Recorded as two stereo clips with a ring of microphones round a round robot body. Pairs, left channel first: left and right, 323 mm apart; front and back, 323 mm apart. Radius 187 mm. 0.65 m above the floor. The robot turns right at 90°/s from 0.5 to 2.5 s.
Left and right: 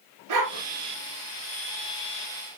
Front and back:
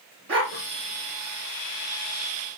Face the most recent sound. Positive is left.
turn(degrees=50)